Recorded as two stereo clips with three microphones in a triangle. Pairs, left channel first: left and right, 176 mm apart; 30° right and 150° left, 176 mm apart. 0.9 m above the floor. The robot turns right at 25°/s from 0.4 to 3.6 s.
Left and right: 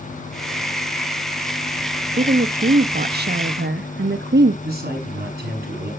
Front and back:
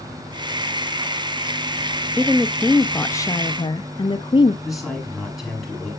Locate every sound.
2.2 s a woman speaking: 130° right, 0.8 m; by 4.5 s 95° right, 0.8 m
4.6 s a man speaking: 120° right, 8 m